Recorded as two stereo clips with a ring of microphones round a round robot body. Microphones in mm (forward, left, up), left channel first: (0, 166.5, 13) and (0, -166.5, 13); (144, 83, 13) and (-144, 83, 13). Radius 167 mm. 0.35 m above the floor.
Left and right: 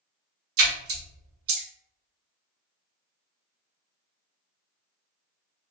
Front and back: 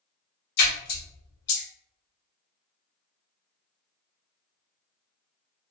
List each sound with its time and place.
0.6 s a splash: 40° right, 0.8 m